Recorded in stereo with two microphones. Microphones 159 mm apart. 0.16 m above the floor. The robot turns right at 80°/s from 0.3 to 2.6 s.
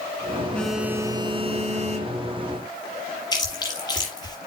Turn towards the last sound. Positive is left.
turn(degrees=25)  # may be behind; listen again after turning